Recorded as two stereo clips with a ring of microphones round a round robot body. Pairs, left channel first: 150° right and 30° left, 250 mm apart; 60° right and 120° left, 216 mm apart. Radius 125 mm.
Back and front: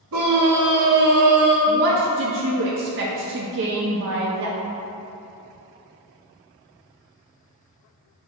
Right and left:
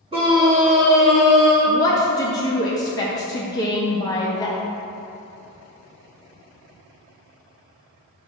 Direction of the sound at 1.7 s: 10° left.